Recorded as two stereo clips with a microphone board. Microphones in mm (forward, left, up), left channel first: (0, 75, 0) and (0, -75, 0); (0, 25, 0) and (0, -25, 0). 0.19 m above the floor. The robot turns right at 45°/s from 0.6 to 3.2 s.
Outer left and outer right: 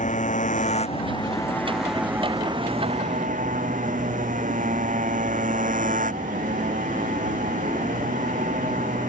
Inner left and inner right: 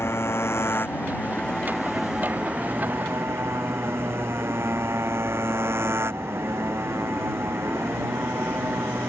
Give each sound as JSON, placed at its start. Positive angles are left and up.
{"t": 0.0, "sound": "a motorcycle", "azimuth_deg": 125}